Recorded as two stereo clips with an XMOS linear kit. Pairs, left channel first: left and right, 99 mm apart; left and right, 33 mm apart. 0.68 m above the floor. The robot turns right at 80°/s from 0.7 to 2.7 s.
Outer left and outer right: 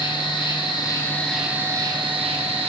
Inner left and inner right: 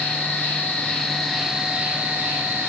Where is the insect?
125° left, 3 m; by 2.7 s 75° right, 3 m.